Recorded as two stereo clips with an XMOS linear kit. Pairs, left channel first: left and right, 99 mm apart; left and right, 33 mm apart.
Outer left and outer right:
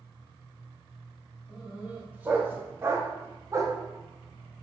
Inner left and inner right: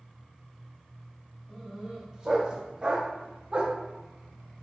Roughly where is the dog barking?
Centre.